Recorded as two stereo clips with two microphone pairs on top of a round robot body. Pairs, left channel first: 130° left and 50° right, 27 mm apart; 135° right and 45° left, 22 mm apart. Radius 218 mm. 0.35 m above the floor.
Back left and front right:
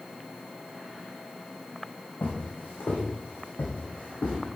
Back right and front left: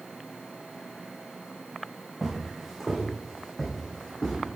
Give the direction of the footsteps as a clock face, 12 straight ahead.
8 o'clock.